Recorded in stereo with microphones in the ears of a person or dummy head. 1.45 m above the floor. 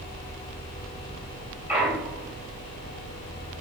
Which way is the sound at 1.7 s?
5° right (ahead or behind).